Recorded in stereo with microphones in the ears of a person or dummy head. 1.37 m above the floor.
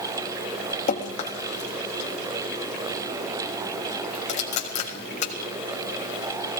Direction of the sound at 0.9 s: 40° left (ahead or behind).